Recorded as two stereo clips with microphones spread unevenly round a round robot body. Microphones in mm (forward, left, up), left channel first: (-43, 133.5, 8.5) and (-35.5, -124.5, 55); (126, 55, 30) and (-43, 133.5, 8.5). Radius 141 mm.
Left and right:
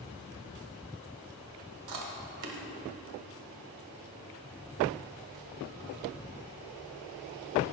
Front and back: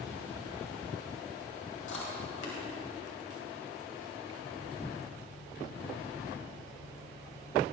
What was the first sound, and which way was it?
Chewing, 65° right.